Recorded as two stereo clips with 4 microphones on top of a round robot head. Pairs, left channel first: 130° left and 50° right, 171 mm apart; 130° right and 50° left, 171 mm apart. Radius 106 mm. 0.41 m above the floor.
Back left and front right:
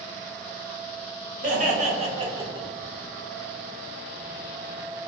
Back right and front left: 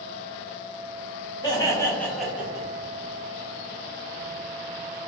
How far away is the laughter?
About 1.9 m.